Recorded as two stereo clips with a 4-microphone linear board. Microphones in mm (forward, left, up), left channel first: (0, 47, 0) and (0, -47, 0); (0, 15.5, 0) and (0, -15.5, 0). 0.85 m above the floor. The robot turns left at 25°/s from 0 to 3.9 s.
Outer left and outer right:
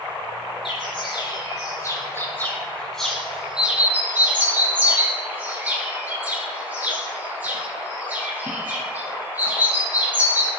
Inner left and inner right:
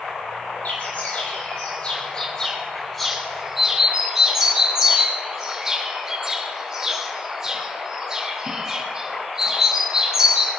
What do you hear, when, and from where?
0.7 s a bird: 60° left (ahead or behind), 4.5 m; by 10.5 s 20° right (ahead or behind), 4.5 m